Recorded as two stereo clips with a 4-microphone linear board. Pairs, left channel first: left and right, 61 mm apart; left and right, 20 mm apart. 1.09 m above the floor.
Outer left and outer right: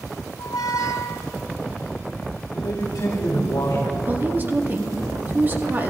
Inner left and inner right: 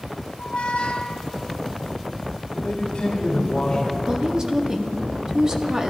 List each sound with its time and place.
0.4 s a squeak: 65° left (ahead or behind), 1.5 m
2.5 s a man speaking: 65° left (ahead or behind), 2.5 m
4.1 s a woman speaking: 30° right (ahead or behind), 1.7 m